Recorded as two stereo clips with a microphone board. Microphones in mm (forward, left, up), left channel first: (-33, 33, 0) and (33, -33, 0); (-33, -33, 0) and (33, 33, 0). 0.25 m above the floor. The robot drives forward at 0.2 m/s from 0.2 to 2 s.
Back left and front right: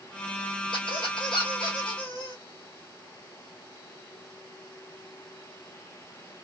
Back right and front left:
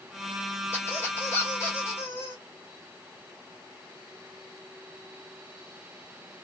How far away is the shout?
I don't hear a shout.